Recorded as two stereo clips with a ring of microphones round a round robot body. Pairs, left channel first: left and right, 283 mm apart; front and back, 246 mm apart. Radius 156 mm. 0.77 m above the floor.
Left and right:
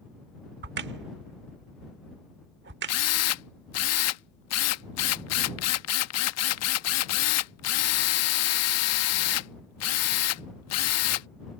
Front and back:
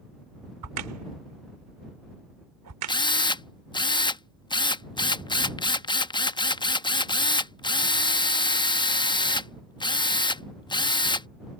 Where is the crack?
145° right.